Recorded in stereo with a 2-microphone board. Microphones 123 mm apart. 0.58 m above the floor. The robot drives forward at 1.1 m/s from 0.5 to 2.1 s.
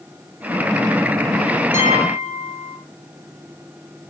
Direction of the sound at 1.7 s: 90° left.